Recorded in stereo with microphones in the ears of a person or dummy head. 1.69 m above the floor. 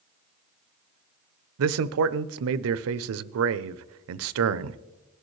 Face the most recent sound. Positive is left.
turn(degrees=-75)  # may be behind; listen again after turning